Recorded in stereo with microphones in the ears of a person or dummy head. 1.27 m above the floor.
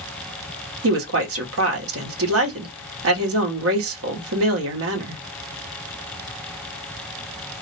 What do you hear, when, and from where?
0.8 s a woman speaking: 70° right (ahead or behind), 1.0 m